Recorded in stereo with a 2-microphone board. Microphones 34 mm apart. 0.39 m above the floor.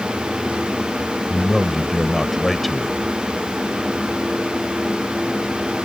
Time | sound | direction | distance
1.3 | a man speaking | centre (ahead or behind) | ?